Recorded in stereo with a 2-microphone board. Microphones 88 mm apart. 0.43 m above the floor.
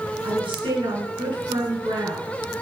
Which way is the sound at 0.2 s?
70° right (ahead or behind).